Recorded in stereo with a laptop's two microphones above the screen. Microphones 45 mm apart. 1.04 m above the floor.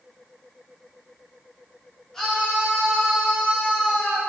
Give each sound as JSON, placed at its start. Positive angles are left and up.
{"t": 2.1, "sound": "a scream", "side_deg": 10, "distance_m": 3.0}